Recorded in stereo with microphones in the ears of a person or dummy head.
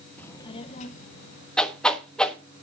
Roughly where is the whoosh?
Centre.